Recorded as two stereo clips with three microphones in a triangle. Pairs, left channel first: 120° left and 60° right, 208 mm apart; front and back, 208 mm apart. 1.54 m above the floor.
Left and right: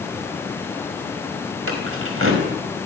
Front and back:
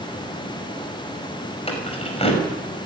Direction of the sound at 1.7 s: 60° right.